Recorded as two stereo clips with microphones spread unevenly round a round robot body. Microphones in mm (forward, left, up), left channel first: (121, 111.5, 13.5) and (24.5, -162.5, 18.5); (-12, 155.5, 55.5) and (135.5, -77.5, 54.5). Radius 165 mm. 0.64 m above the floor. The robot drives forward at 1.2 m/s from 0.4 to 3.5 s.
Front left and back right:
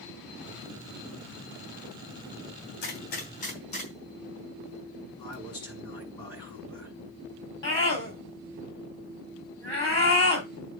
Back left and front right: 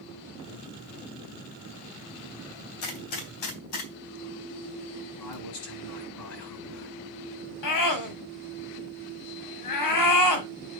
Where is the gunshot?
130° left, 2.5 m; by 5.3 s 140° left, 3.5 m.